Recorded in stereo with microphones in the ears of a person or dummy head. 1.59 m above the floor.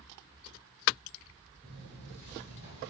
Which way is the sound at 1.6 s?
5° left (ahead or behind).